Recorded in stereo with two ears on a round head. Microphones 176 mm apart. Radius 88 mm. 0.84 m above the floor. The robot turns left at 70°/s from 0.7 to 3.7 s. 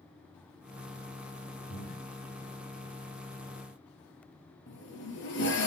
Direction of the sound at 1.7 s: 40° left (ahead or behind).